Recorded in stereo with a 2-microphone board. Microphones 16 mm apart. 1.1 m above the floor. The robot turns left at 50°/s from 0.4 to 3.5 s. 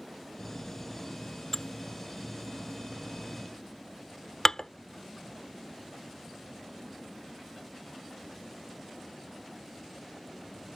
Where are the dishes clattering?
35° left (ahead or behind); by 4.7 s 45° left (ahead or behind).